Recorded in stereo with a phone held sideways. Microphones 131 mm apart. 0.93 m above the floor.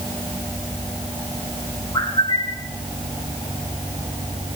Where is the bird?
50° left (ahead or behind), 5.5 m.